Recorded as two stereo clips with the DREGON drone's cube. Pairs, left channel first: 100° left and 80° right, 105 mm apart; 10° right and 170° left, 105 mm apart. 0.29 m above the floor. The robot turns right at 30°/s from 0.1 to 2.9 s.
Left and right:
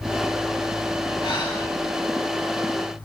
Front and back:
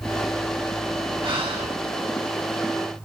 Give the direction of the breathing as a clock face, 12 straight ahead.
7 o'clock.